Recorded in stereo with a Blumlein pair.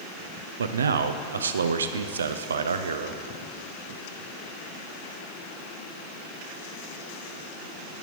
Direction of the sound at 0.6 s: 70° right.